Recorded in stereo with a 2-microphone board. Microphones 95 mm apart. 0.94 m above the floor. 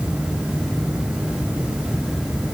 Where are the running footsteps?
No running footsteps in this recording.